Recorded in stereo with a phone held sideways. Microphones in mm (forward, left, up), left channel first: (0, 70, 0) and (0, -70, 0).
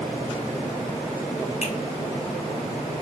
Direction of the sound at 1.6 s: 45° left (ahead or behind).